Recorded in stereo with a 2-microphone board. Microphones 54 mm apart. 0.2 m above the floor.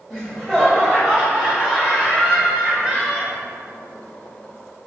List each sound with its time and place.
0.1 s laughter: 5° left (ahead or behind), 1.6 m; by 3.3 s centre (ahead or behind), 3 m